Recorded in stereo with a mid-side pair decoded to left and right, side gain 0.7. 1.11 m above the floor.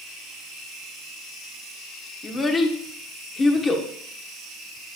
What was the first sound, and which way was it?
A child speaking, 25° left.